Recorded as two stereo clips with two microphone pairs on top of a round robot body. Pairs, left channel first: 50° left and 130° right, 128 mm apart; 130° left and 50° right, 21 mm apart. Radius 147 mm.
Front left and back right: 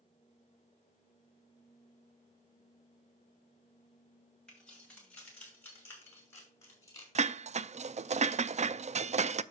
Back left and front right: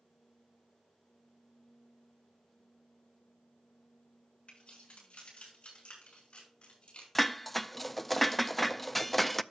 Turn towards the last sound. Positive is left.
turn(degrees=-150)